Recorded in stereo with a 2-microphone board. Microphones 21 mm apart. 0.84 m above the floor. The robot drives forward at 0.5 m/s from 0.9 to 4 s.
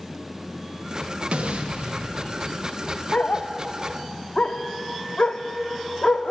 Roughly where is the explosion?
Right.